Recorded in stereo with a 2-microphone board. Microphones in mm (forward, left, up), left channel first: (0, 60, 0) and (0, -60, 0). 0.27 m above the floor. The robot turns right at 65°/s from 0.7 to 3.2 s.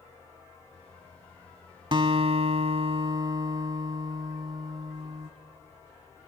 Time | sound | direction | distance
1.9 | a guitar | 125° right | 0.7 m